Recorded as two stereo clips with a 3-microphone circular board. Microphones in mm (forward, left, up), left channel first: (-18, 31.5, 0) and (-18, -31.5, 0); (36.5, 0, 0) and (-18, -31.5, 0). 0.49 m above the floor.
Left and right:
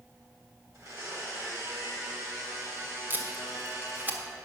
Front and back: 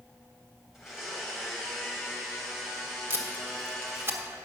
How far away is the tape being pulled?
About 1.2 m.